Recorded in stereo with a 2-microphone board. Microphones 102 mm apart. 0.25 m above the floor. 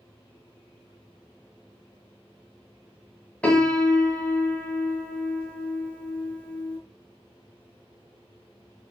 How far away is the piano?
About 0.9 m.